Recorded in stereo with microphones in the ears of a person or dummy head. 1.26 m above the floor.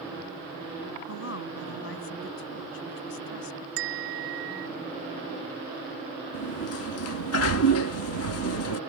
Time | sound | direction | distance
1.1 | a woman speaking | 70° left (ahead or behind) | ?
3.8 | a bell | 85° right | ?
6.3 | a sliding door | 75° left (ahead or behind) | ?